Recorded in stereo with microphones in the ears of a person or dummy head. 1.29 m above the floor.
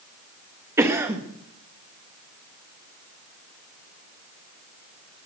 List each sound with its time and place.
0.8 s a cough: 15° right (ahead or behind), 1.6 m